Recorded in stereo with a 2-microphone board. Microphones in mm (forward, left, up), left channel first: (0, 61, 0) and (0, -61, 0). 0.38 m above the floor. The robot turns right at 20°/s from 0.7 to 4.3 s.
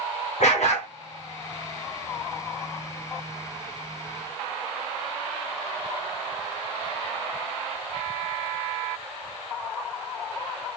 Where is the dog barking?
75° left (ahead or behind), 1.5 m.